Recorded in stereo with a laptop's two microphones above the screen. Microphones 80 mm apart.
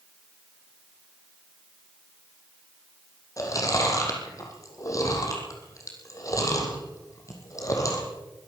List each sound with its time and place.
3.4 s chewing: 45° left (ahead or behind), 6 m